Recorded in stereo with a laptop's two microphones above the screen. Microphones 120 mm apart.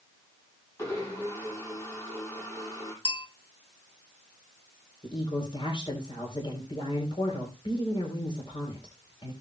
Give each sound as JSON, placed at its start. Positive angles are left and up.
{"t": 0.8, "sound": "a blender", "side_deg": 25, "distance_m": 6.5}
{"t": 3.0, "sound": "a bell", "side_deg": 45, "distance_m": 1.7}
{"t": 5.0, "sound": "a woman speaking", "side_deg": 45, "distance_m": 3.5}